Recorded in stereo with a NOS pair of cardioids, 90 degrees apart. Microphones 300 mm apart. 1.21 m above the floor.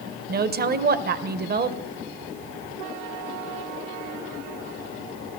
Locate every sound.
0.3 s a woman speaking: 30° right, 0.7 m